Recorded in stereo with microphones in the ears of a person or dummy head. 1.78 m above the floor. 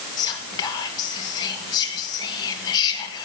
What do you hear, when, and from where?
0.2 s whispering: 25° left (ahead or behind), 2.5 m